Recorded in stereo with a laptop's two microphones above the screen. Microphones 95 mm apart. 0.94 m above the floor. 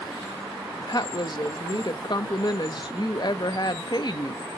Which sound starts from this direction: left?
A woman speaking, at 0.8 s.